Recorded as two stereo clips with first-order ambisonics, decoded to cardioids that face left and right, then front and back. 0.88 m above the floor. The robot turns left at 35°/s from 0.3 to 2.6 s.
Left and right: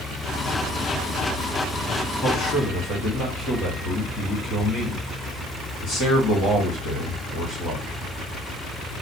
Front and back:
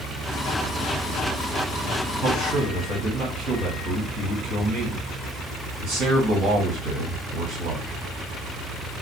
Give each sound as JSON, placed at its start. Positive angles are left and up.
{"t": 2.2, "sound": "a man speaking", "azimuth_deg": 160, "distance_m": 1.6}